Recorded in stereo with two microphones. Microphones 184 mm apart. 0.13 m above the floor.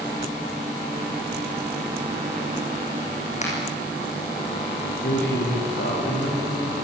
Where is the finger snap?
40° left (ahead or behind), 6.5 m.